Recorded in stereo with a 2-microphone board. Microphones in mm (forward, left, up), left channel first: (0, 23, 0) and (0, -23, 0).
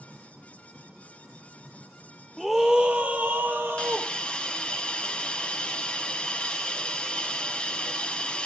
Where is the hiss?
20° left (ahead or behind), 0.7 m.